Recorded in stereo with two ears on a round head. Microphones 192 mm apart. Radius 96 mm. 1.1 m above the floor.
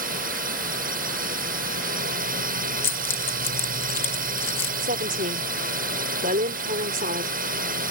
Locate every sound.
0.0 s a drone: 40° right (ahead or behind)
2.8 s keys jangling: 10° left (ahead or behind)
4.8 s a woman speaking: 40° right (ahead or behind)